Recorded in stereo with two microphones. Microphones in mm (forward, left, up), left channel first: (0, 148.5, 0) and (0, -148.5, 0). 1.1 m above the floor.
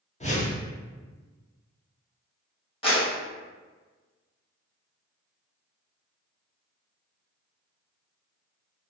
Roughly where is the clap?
Centre.